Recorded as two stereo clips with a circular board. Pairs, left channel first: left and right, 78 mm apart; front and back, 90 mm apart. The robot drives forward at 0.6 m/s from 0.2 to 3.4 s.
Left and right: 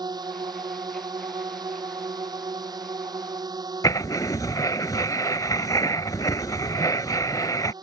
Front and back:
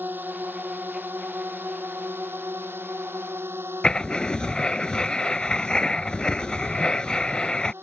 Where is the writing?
80° left.